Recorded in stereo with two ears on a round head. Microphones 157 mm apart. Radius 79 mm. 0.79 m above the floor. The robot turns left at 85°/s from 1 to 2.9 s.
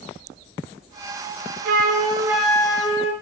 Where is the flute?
115° right, 0.5 m; by 3.1 s 140° left, 0.5 m.